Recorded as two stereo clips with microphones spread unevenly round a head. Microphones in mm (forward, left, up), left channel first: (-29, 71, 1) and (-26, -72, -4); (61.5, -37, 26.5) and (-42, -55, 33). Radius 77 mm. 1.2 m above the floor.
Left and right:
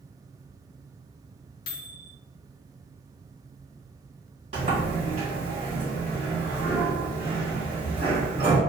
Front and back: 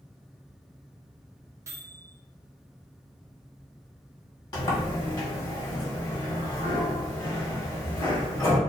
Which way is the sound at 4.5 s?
40° right.